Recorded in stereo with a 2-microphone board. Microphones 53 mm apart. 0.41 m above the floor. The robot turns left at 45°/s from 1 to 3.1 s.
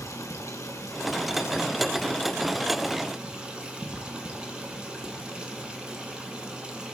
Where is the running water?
75° left, 1.9 m; by 7.0 s 20° right, 1.9 m.